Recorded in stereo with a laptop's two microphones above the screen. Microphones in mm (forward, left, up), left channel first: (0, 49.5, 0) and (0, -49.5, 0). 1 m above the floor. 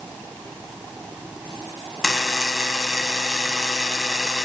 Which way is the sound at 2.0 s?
Centre (ahead or behind).